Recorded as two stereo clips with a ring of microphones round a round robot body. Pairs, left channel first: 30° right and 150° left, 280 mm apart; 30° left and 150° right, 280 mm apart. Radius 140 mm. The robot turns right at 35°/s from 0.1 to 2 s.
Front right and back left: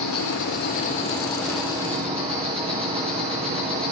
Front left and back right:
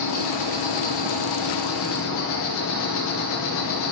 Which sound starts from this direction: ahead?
An insect, at 0.0 s.